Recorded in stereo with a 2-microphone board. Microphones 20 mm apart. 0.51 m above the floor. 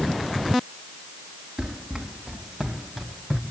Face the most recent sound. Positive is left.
turn(degrees=5)  # may be behind; listen again after turning